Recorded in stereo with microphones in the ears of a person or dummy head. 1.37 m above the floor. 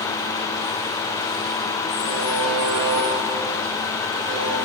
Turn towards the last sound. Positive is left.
turn(degrees=-25)  # may be behind; listen again after turning